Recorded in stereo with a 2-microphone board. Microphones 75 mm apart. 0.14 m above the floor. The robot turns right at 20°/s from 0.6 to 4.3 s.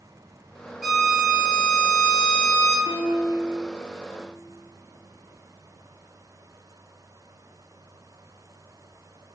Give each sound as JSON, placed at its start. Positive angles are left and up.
{"t": 0.8, "sound": "a violin", "azimuth_deg": 0, "distance_m": 2.5}
{"t": 2.9, "sound": "a piano", "side_deg": -35, "distance_m": 3.0}